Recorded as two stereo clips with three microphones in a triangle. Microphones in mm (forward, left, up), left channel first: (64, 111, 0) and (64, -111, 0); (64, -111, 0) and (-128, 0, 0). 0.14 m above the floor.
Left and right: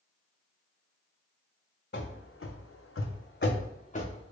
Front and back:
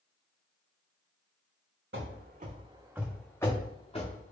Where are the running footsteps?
125° left, 0.7 m; by 4.3 s 25° left, 1.1 m.